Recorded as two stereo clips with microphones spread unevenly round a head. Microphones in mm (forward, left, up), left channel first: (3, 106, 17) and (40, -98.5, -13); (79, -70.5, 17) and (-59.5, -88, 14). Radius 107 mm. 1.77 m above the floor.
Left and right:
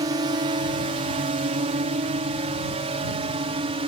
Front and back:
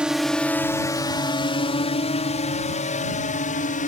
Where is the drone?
100° right; by 3.9 s 15° right.